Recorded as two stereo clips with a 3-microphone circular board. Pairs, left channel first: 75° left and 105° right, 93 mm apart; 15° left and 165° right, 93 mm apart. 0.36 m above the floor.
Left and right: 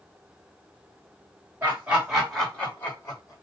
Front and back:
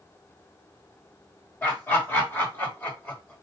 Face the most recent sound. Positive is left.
turn(degrees=80)